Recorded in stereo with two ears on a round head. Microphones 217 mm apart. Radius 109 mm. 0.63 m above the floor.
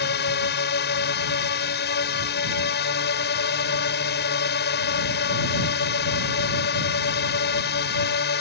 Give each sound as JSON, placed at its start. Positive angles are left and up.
{"t": 0.0, "sound": "a drone", "side_deg": 45}